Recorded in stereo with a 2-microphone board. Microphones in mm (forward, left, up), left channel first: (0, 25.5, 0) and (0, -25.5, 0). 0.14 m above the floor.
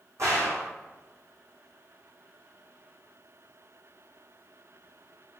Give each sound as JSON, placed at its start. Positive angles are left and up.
{"t": 0.2, "sound": "a gunshot", "side_deg": -70, "distance_m": 3.0}